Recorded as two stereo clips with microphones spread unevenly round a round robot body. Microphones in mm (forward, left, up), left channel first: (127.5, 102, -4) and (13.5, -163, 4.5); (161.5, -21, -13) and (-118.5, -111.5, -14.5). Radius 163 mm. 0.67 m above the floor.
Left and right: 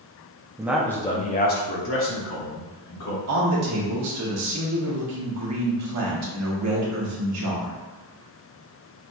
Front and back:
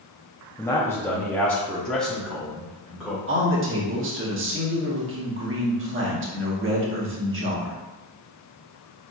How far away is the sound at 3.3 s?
About 1.3 m.